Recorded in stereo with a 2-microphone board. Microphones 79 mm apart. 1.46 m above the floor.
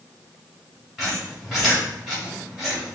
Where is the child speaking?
No child speaking in this recording.